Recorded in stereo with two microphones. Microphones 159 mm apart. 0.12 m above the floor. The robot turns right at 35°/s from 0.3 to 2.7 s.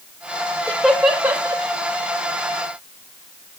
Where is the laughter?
10° left (ahead or behind), 3 m; by 1.6 s 25° right (ahead or behind), 3 m.